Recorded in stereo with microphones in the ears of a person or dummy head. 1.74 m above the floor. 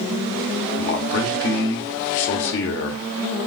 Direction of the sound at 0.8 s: 65° left (ahead or behind).